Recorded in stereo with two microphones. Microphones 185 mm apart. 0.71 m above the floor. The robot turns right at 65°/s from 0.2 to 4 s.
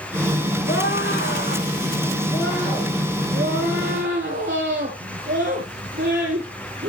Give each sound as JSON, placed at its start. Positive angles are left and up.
{"t": 0.7, "sound": "a scream", "azimuth_deg": 50, "distance_m": 8.0}